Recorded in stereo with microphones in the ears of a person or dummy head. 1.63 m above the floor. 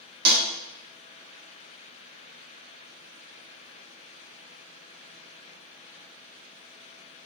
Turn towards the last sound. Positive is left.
turn(degrees=-60)  # may be behind; listen again after turning